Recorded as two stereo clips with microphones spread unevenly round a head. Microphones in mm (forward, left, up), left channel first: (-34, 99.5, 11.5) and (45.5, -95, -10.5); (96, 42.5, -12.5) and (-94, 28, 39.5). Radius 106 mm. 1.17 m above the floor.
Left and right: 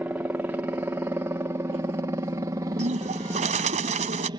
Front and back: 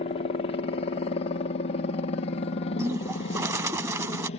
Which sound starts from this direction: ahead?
A helicopter, at 0.0 s.